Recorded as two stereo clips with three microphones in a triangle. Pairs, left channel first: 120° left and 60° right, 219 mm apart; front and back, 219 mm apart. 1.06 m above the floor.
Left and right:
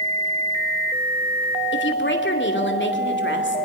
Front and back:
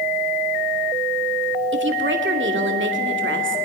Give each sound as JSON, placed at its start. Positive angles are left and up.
{"t": 1.7, "sound": "a woman speaking", "azimuth_deg": 150, "distance_m": 2.5}